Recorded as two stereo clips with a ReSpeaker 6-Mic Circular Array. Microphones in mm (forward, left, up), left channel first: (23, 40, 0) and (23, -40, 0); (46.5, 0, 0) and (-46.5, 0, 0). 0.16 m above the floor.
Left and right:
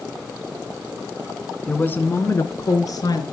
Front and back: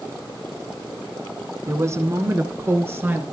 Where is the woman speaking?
150° left, 1.2 m; by 3.2 s 115° left, 2 m.